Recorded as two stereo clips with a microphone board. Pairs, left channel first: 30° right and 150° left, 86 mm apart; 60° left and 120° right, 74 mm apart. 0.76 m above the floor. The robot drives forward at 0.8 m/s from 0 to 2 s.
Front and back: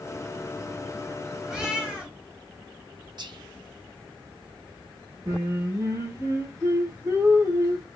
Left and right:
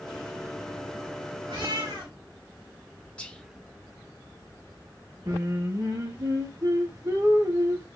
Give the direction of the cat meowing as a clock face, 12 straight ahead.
4 o'clock.